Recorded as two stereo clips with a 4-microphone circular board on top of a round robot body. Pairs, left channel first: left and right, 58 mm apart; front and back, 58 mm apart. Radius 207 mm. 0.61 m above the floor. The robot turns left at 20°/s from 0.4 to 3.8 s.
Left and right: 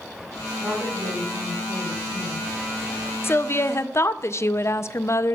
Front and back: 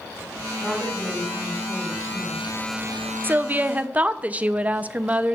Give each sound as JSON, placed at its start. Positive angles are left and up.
{"t": 0.6, "sound": "a woman speaking", "azimuth_deg": -80, "distance_m": 4.0}
{"t": 3.2, "sound": "a woman speaking", "azimuth_deg": 130, "distance_m": 0.7}